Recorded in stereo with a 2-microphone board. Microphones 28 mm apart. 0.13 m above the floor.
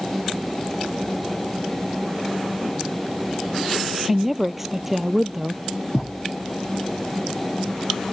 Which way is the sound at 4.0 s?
10° right (ahead or behind).